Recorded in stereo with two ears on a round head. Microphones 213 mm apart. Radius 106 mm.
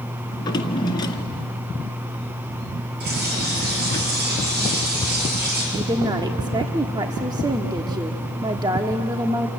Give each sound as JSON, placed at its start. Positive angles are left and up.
{"t": 0.3, "sound": "a drawer", "side_deg": 20, "distance_m": 1.7}
{"t": 3.0, "sound": "a bird", "side_deg": -40, "distance_m": 7.0}
{"t": 5.7, "sound": "a woman speaking", "side_deg": -15, "distance_m": 1.1}